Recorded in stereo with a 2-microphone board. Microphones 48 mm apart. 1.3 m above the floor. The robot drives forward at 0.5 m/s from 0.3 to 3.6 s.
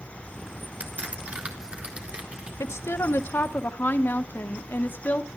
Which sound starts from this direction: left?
A woman speaking, at 2.6 s.